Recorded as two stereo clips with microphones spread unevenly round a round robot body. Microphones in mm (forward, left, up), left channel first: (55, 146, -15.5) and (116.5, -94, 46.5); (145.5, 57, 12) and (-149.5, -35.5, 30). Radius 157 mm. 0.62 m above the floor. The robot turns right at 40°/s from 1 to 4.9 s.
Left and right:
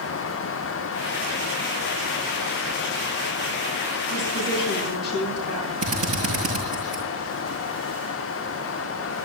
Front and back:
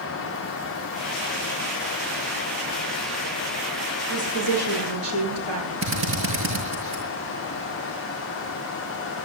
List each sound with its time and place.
4.1 s a woman speaking: 165° left, 9.5 m; by 5.7 s 165° right, 9.5 m
5.8 s a drill: 110° right, 6.5 m